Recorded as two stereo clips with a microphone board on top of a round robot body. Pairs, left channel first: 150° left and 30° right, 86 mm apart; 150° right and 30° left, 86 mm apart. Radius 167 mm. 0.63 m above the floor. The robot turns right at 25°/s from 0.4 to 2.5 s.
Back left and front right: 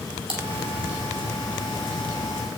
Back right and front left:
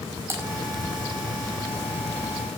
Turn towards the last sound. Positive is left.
turn(degrees=20)